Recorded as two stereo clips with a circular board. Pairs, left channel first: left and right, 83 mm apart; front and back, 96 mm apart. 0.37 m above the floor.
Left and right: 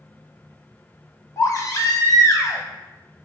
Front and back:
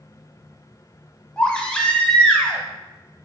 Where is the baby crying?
75° left, 0.6 m.